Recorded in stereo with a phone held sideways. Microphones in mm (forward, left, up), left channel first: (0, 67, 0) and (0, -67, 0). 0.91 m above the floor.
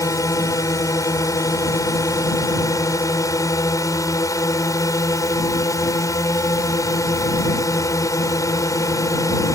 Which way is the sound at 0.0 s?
25° left (ahead or behind).